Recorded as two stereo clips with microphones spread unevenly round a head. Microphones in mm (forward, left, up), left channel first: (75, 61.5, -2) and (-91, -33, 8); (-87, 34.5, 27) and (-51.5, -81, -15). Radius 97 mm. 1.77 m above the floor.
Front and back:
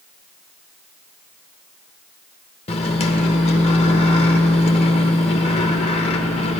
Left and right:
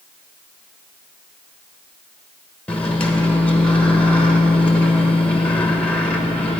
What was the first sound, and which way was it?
A microwave, 65° left.